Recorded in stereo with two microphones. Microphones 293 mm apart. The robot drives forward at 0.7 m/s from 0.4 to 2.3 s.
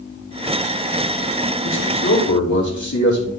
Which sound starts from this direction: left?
A man speaking, at 1.6 s.